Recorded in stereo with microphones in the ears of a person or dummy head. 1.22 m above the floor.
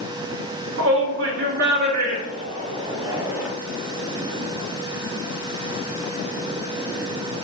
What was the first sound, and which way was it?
A shout, 70° right (ahead or behind).